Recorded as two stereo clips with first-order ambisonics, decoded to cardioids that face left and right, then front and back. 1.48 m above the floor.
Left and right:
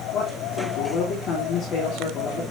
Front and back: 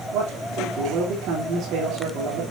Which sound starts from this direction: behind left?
A man speaking, at 0.1 s.